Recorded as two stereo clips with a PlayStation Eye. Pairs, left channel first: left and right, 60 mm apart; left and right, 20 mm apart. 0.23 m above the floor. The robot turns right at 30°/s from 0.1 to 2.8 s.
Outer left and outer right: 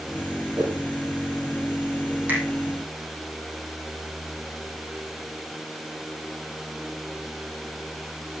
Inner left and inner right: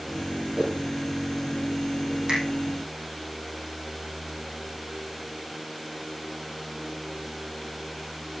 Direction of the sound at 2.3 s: 30° right (ahead or behind).